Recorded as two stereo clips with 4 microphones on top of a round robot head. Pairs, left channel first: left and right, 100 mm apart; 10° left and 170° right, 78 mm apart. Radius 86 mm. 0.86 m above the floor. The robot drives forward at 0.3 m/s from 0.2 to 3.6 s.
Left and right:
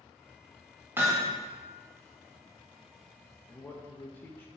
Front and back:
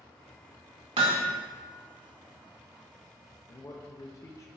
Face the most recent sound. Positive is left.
turn(degrees=25)